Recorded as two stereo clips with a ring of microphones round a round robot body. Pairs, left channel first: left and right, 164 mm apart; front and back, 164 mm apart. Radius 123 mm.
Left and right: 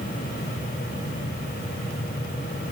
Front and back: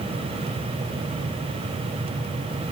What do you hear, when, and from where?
Only background noise.